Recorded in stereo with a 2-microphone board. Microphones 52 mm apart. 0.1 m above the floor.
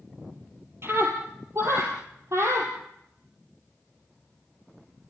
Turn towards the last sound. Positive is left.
turn(degrees=-60)  # may be behind; listen again after turning